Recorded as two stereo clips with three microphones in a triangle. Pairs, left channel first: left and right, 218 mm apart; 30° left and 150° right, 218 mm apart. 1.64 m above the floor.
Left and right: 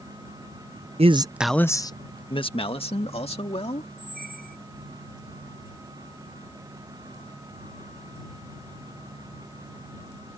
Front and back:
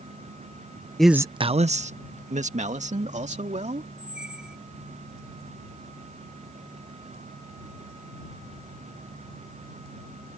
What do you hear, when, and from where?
1.0 s a man speaking: 55° right; by 3.9 s 150° left
4.0 s a squeak: 65° right